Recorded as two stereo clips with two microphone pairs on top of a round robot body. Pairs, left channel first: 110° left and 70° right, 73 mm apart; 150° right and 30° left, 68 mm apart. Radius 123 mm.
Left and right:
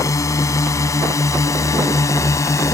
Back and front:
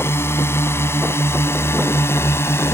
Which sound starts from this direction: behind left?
A drone, at 0.0 s.